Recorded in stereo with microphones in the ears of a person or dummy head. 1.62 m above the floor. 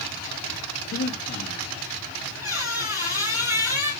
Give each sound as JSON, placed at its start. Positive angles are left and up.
{"t": 0.9, "sound": "breathing", "side_deg": 40, "distance_m": 2.5}
{"t": 2.4, "sound": "a squeak", "side_deg": -15, "distance_m": 2.5}